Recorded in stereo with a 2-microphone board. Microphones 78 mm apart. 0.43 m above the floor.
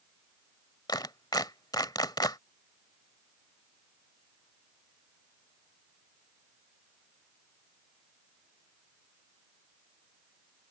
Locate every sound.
0.9 s a clap: 65° left (ahead or behind)